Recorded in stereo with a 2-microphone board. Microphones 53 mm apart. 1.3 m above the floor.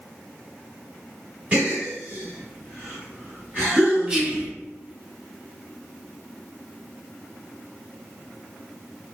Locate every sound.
1.5 s a gasp: 25° right (ahead or behind), 1.2 m
4.1 s whispering: 20° right (ahead or behind), 1.0 m